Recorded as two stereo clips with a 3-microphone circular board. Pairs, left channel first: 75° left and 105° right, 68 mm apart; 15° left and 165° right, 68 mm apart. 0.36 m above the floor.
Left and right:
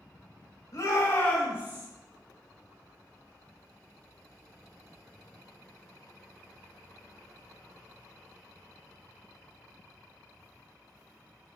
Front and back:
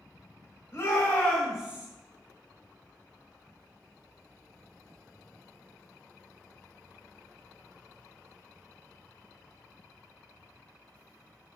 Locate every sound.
0.7 s a shout: 60° left, 1.4 m; by 1.9 s 110° right, 1.1 m